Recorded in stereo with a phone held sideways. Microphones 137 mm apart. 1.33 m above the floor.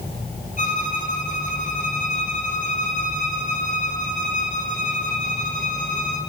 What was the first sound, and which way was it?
A violin, 65° left (ahead or behind).